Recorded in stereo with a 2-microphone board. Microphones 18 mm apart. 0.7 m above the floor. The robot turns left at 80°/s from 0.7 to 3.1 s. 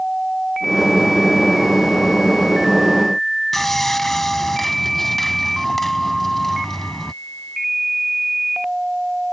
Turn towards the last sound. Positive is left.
turn(degrees=20)  # may be behind; listen again after turning